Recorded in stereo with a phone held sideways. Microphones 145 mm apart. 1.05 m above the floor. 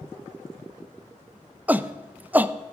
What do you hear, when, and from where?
1.7 s a shout: 10° right (ahead or behind), 0.6 m